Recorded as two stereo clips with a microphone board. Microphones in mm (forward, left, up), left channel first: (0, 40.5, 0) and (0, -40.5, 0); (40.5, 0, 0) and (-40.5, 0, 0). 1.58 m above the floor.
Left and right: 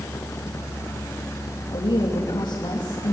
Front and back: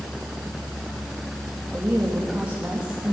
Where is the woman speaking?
105° left, 3 m.